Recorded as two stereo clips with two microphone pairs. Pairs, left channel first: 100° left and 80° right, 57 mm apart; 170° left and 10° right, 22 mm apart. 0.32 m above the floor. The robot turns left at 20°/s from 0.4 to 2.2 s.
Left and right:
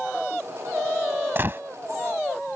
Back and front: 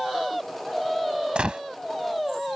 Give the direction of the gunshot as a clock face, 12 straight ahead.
1 o'clock.